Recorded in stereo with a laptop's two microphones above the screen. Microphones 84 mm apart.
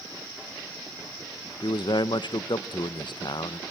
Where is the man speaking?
65° left (ahead or behind), 0.5 m.